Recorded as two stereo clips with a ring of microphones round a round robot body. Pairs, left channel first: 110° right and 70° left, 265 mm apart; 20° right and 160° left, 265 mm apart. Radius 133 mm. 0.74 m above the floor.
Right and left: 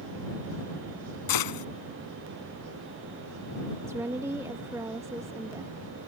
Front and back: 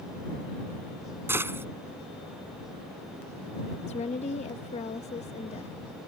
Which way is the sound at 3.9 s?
Straight ahead.